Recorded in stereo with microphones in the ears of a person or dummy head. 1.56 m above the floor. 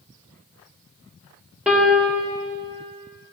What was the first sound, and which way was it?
A piano, 5° right (ahead or behind).